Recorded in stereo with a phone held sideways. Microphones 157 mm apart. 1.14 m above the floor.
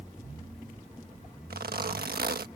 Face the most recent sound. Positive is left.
turn(degrees=-75)  # may be behind; listen again after turning